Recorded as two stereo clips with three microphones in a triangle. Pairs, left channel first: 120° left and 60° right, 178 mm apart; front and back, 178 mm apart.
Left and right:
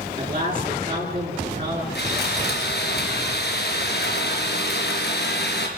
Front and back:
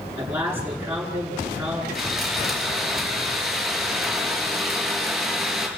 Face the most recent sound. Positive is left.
turn(degrees=95)